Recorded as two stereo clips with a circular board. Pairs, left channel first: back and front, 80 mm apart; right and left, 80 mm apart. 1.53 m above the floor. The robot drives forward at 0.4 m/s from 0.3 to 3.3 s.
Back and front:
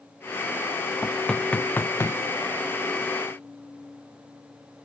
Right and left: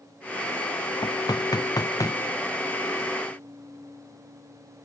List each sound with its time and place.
1.0 s knocking: 90° right, 0.7 m; by 2.2 s 130° right, 0.9 m